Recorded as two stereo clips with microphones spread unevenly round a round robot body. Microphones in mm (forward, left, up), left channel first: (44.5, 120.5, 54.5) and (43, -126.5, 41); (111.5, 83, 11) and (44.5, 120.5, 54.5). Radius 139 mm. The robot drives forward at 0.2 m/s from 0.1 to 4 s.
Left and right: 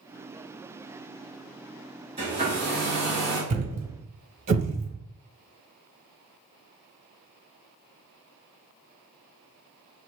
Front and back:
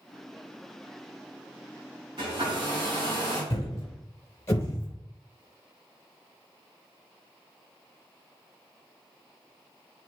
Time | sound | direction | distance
2.2 | a hair dryer | 160° right | 2.5 m
3.5 | a thud | 115° right | 0.5 m